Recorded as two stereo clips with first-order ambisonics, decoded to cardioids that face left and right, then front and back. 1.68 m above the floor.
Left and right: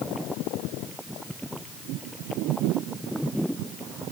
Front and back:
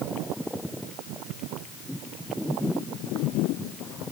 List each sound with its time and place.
Only background noise.